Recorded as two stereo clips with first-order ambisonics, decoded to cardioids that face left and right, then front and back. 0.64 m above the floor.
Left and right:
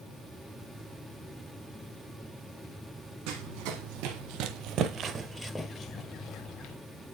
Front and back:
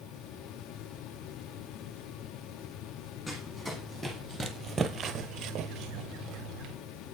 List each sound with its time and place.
3.3 s running footsteps: 80° right, 1.8 m; by 6.8 s 130° left, 1.4 m